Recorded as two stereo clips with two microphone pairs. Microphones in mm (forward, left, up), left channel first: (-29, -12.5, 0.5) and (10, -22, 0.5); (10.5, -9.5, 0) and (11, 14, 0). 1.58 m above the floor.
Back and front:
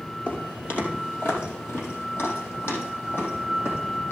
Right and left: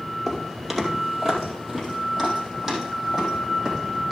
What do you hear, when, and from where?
0.3 s footsteps: 165° left, 2.5 m; by 4.1 s 175° left, 5 m